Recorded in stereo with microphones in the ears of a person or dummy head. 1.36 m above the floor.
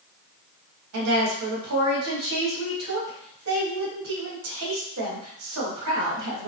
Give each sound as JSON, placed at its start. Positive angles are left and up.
{"t": 0.9, "sound": "a woman speaking", "side_deg": -70, "distance_m": 1.8}